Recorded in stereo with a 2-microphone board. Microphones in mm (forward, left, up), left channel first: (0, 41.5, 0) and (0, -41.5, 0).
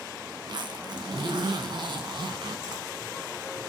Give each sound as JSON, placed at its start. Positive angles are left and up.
{"t": 0.4, "sound": "a zipper", "side_deg": -65, "distance_m": 2.0}